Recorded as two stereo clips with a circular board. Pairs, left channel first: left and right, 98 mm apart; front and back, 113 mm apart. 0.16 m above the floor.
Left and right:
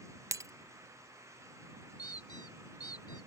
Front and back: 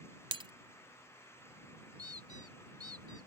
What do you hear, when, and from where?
0.3 s breaking glass: 145° right
2.0 s a squeak: 130° left